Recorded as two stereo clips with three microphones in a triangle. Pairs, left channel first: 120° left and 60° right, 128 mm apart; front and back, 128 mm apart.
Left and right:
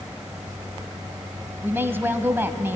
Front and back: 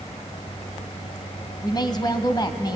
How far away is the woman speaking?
About 1.4 m.